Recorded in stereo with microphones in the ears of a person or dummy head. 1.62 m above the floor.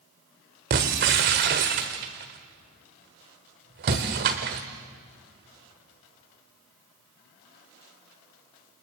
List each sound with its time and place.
0.7 s breaking glass: 35° right (ahead or behind), 1.5 m